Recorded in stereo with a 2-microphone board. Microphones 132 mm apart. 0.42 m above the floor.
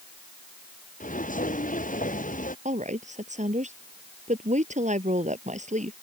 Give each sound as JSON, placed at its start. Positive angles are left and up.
{"t": 1.0, "sound": "footsteps", "side_deg": 85}
{"t": 2.6, "sound": "a woman speaking", "side_deg": -65}